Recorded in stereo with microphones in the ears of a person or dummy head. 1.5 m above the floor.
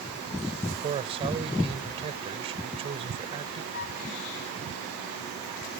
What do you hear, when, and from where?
0.8 s a man speaking: 30° right (ahead or behind)
3.7 s a flute: 45° left (ahead or behind)